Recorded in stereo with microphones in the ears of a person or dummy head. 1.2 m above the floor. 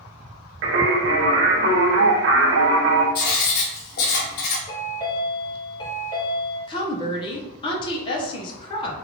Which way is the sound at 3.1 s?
55° left (ahead or behind).